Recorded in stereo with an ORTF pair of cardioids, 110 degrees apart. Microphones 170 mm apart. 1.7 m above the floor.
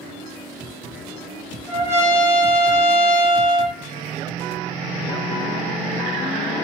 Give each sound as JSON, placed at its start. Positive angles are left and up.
{"t": 1.7, "sound": "a trumpet", "azimuth_deg": -15, "distance_m": 0.8}